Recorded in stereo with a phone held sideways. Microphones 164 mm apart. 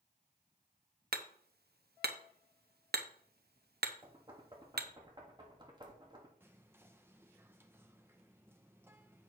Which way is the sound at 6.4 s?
15° right (ahead or behind).